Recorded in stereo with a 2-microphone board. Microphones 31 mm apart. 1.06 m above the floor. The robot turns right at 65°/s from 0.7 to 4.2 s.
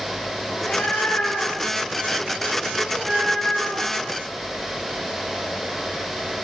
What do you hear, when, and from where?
0.5 s a cat meowing: 50° left, 6.5 m; by 4.0 s 100° right, 6.5 m